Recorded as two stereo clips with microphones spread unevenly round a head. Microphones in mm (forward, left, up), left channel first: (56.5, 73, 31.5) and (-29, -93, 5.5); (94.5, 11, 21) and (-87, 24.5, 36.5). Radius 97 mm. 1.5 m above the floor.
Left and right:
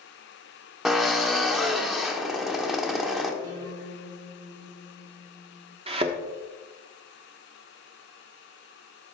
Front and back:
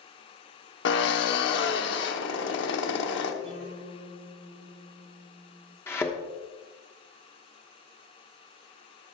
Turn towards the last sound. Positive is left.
turn(degrees=-80)